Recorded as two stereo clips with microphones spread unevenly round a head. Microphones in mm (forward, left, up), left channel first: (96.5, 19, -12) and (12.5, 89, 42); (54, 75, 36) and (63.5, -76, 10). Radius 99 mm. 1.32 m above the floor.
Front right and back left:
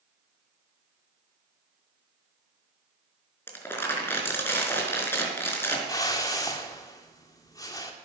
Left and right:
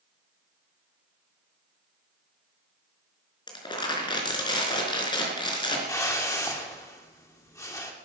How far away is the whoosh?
About 2.5 m.